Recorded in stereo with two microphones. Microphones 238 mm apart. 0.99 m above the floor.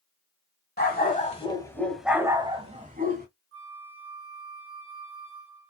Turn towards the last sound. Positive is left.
turn(degrees=-60)  # may be behind; listen again after turning